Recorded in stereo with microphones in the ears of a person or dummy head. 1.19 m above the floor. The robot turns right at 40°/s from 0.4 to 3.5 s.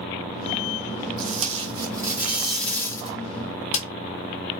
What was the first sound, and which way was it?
Tape being pulled, 50° right.